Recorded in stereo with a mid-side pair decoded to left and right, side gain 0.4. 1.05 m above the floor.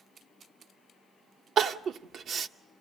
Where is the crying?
65° right, 0.8 m.